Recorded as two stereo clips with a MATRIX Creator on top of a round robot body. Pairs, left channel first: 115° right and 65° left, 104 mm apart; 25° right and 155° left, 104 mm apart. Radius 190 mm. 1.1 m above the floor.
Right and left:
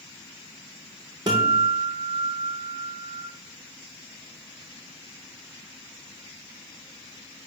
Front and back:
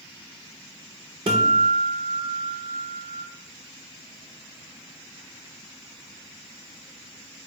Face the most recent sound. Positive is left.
turn(degrees=120)